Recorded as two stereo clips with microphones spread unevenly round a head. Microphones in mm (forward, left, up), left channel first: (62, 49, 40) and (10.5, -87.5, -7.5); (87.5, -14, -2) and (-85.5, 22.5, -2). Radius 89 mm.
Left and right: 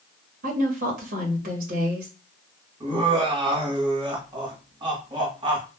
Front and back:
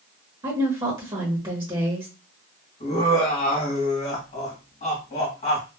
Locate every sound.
0.4 s a woman speaking: 125° right, 1.1 m
2.8 s laughter: 60° right, 1.3 m